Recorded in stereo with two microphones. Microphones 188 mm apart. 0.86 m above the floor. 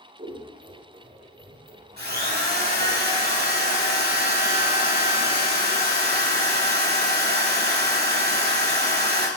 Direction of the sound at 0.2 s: 45° right (ahead or behind).